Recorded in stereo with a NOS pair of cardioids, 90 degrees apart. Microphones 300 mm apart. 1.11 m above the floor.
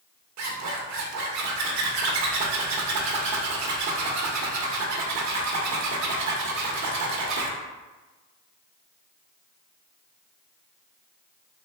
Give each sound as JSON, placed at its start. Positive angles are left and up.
{"t": 0.4, "sound": "a zipper", "azimuth_deg": -70, "distance_m": 1.1}